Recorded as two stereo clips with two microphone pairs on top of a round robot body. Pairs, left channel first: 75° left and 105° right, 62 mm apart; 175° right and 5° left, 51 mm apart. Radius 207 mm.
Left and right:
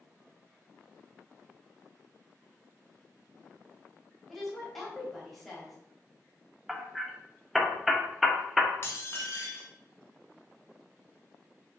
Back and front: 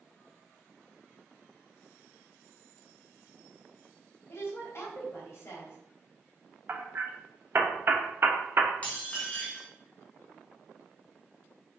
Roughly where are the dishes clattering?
Behind left.